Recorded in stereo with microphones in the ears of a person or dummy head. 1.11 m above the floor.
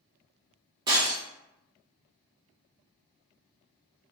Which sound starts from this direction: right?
Breaking glass, at 0.9 s.